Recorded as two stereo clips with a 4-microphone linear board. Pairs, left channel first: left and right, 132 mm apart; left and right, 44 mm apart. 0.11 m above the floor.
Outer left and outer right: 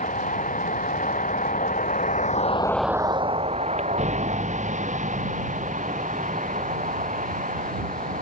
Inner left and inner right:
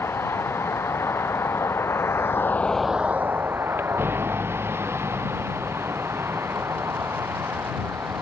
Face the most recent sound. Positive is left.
turn(degrees=-70)  # may be behind; listen again after turning